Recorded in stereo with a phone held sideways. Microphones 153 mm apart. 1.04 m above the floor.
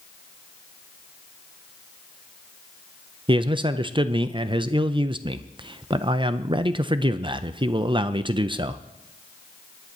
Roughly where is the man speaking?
Right.